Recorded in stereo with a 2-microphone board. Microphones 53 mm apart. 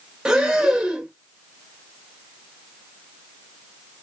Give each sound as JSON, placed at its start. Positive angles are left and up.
{"t": 0.2, "sound": "breathing", "side_deg": -15, "distance_m": 1.3}